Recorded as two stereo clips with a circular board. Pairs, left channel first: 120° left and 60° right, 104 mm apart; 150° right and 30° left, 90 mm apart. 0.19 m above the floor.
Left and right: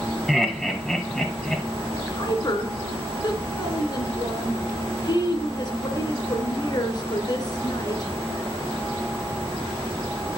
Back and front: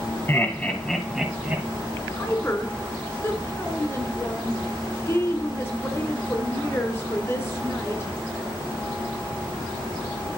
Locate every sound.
0.3 s laughter: 150° right, 1.0 m; by 1.6 s 45° left, 1.0 m
1.9 s a woman speaking: 155° left, 1.9 m